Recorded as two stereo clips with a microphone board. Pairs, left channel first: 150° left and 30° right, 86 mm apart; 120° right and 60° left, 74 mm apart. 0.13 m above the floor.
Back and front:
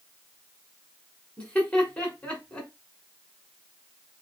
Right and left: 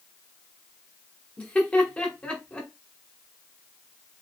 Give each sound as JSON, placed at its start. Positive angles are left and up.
{"t": 1.4, "sound": "laughter", "azimuth_deg": -160, "distance_m": 1.4}